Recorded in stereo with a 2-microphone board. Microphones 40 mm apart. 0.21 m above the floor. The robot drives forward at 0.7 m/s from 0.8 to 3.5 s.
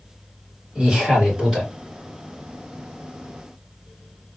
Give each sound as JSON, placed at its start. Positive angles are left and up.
{"t": 0.8, "sound": "a man speaking", "side_deg": -10, "distance_m": 2.5}